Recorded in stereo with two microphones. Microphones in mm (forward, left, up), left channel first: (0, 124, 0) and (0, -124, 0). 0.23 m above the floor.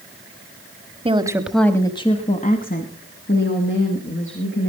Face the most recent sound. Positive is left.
turn(degrees=55)  # may be behind; listen again after turning